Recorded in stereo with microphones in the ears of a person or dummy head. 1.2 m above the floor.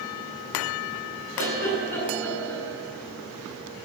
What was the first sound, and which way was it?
A giggle, 10° left (ahead or behind).